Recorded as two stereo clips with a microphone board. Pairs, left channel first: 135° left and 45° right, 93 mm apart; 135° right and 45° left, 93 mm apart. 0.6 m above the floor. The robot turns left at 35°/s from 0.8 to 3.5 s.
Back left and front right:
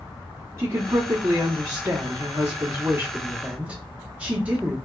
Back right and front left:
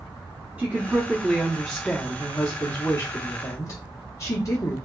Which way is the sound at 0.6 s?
15° right.